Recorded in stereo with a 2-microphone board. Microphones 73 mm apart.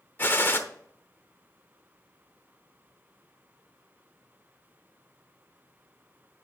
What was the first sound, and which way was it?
A gunshot, 30° left (ahead or behind).